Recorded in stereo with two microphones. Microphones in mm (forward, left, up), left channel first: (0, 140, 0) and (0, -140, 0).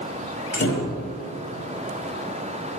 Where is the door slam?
45° left (ahead or behind), 1.8 m.